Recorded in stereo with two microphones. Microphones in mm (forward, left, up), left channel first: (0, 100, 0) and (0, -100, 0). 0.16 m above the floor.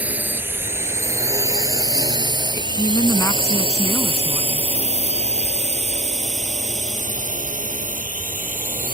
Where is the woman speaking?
15° left (ahead or behind).